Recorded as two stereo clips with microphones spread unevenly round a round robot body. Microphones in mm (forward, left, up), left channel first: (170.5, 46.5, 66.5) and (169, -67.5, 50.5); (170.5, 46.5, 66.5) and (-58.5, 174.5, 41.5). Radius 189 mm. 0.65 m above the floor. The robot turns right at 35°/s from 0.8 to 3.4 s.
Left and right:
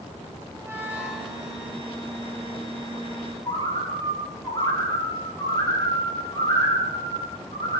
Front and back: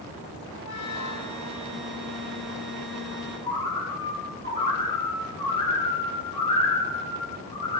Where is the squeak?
20° right, 4 m; by 1.5 s straight ahead, 4 m.